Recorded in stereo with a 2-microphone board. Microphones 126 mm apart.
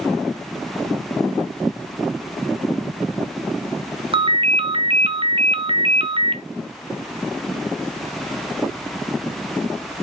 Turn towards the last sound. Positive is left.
turn(degrees=-45)  # may be behind; listen again after turning